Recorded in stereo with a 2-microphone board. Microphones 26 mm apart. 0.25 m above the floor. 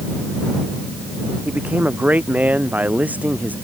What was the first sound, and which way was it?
A man speaking, 75° right (ahead or behind).